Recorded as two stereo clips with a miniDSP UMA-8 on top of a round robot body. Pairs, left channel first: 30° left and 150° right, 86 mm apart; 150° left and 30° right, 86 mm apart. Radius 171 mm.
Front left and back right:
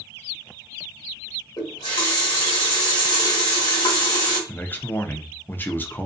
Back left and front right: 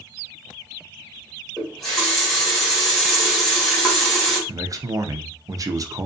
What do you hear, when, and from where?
1.6 s a running tap: 65° left, 1.2 m
4.5 s a man speaking: 25° right, 0.6 m